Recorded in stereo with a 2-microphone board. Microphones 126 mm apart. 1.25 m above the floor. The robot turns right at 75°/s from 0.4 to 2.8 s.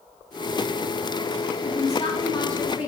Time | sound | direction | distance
1.6 | a woman speaking | 105° left | 2 m